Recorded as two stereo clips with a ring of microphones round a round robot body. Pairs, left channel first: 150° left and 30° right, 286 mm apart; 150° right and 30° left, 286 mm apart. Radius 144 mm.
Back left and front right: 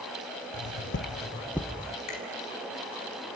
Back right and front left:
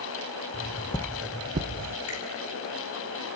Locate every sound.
0.5 s footsteps: 160° left, 1.2 m; by 2.0 s 45° left, 1.1 m
2.1 s a finger snap: straight behind, 5.5 m